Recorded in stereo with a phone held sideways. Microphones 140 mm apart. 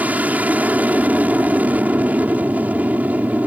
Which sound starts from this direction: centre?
An aircraft, at 0.0 s.